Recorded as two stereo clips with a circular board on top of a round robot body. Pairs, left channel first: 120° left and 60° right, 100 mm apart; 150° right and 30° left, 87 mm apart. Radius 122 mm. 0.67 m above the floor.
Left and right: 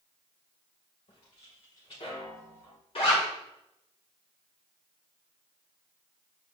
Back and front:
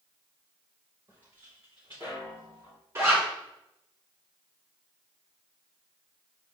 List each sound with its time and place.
1.1 s footsteps: 85° left, 3.5 m; by 2.8 s 70° left, 3.5 m
3.0 s a zipper: 90° left, 2.5 m